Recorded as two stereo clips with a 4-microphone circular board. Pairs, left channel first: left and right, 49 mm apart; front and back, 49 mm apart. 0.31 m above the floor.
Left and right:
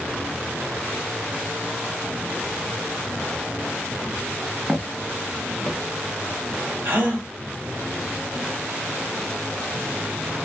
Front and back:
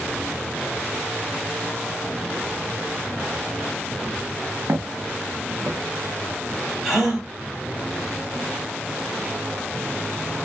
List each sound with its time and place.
4.7 s footsteps: 165° right, 0.7 m; by 5.8 s 155° left, 1.0 m
6.8 s a gasp: 95° right, 1.2 m